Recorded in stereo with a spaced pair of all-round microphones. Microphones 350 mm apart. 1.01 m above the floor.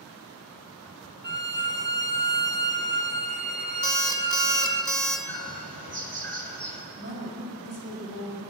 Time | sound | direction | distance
1.2 | a violin | 30° right (ahead or behind) | 0.8 m
3.8 | an alarm clock | 65° right (ahead or behind) | 1.5 m
5.3 | a bird | 80° right | 1.6 m
7.0 | a woman speaking | 55° left (ahead or behind) | 4.5 m